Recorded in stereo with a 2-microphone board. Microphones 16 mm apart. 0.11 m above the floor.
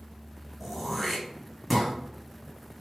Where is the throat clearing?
5° left (ahead or behind), 1.6 m.